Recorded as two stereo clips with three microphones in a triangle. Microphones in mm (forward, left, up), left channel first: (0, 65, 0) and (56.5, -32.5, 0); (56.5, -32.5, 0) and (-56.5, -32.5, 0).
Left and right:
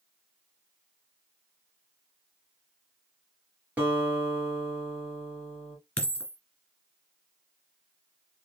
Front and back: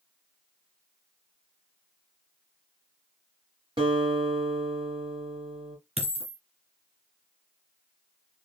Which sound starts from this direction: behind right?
A guitar, at 3.8 s.